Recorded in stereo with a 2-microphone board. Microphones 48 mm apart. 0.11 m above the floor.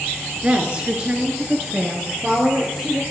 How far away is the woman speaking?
About 1.7 m.